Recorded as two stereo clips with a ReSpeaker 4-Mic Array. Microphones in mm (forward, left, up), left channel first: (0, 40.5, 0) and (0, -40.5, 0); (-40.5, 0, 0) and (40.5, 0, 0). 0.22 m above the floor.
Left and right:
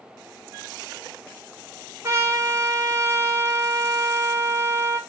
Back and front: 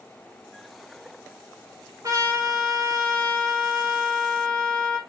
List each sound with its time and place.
2.0 s a trumpet: 40° right, 1.0 m